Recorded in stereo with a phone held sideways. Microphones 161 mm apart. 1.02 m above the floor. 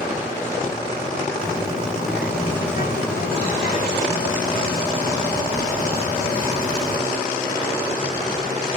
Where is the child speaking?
80° left, 2.5 m.